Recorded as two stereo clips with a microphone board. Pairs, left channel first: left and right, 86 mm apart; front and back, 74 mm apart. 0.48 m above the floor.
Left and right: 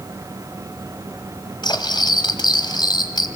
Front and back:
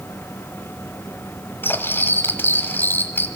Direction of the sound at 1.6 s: 60° left.